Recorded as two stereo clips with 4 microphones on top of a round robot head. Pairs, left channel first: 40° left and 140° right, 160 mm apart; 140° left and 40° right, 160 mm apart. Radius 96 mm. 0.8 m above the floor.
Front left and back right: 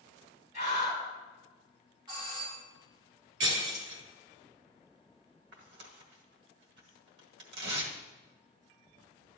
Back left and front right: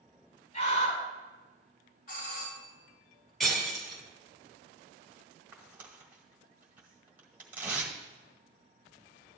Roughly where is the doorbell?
Behind.